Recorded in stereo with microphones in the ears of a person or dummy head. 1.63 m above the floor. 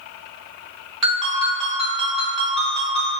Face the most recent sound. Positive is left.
turn(degrees=0)  # may be behind; listen again after turning